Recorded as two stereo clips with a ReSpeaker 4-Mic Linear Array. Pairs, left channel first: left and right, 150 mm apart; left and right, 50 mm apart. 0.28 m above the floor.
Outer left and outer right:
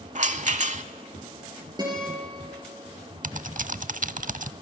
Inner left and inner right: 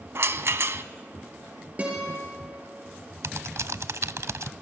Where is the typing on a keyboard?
65° right (ahead or behind), 0.5 m.